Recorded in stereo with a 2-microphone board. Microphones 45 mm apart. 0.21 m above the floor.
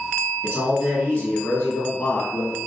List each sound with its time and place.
0.4 s a man speaking: 25° left (ahead or behind), 1.3 m